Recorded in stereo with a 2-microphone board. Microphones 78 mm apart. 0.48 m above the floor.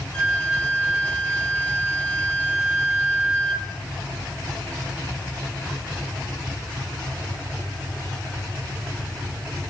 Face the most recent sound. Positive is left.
turn(degrees=15)  # may be behind; listen again after turning